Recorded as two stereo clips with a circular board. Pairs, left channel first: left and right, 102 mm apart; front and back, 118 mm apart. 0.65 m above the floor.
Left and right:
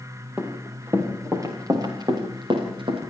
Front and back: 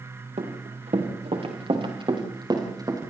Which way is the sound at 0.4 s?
165° right.